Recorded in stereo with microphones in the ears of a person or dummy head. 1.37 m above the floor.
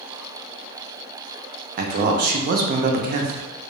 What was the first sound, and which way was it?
A man speaking, 55° right (ahead or behind).